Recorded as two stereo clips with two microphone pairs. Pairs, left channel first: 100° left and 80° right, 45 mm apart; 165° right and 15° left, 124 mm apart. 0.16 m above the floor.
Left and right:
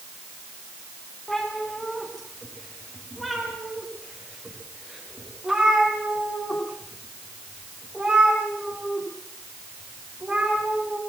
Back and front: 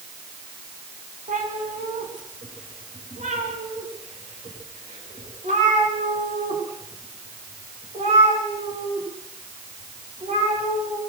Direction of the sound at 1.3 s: 15° left.